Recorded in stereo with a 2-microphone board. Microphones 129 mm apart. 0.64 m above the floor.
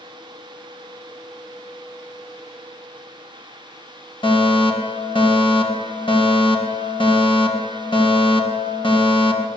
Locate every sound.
4.2 s a fire alarm: 40° left (ahead or behind), 5 m